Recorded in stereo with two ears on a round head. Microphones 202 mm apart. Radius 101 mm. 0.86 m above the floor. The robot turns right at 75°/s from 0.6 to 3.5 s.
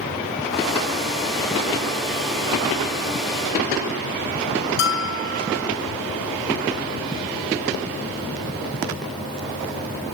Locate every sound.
4.8 s a bell: 55° left (ahead or behind), 2 m